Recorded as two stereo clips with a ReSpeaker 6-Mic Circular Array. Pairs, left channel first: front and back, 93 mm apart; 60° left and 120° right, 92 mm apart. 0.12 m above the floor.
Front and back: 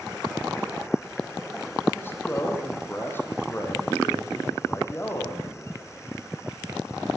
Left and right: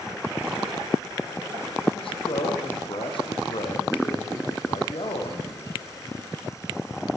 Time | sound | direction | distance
1.9 | a man speaking | 65° left | 5.5 m